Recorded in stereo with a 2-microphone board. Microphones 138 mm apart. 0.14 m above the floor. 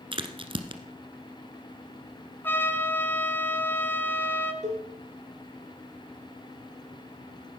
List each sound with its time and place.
0.1 s a crack: 40° right (ahead or behind), 1.3 m
2.4 s a trumpet: 15° left (ahead or behind), 1.4 m
4.6 s a cowbell: 60° right (ahead or behind), 4 m